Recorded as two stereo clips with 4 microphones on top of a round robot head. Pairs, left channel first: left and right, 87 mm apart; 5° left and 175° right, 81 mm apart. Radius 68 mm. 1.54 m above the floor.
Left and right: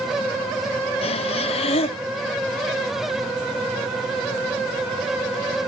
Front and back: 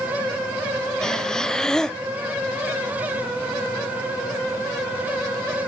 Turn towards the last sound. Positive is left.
turn(degrees=90)